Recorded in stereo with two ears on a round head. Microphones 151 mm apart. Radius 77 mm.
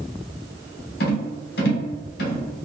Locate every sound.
1.0 s a rattle: 60° left (ahead or behind), 0.8 m